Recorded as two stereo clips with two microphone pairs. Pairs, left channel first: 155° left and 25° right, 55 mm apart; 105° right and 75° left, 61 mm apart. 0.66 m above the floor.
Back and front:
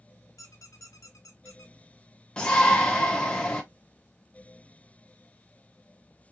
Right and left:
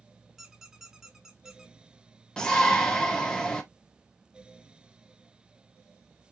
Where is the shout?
160° right, 0.5 m.